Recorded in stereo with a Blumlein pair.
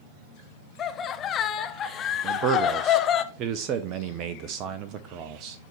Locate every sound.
0.8 s laughter: 25° left, 0.8 m
2.2 s a man speaking: 35° right, 0.6 m